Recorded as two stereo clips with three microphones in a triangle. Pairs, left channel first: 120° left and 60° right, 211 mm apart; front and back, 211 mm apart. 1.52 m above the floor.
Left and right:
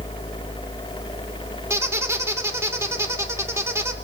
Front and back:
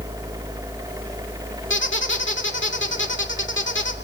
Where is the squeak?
15° left, 2 m.